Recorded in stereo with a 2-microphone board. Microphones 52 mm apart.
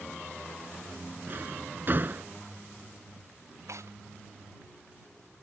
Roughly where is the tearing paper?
Right.